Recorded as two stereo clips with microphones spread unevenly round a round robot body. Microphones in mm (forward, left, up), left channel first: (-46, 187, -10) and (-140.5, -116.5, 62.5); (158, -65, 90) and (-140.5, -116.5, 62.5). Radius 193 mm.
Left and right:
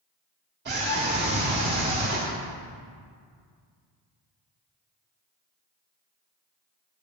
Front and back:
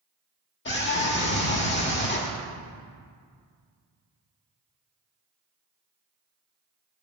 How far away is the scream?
About 1.8 m.